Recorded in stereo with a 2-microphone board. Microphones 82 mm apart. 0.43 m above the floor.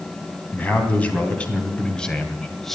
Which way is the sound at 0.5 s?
20° left (ahead or behind).